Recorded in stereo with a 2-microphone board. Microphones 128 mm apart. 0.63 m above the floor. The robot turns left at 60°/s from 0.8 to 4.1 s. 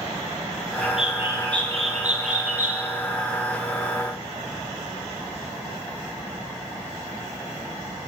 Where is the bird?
5° left, 4.5 m; by 2.8 s 115° right, 4.5 m.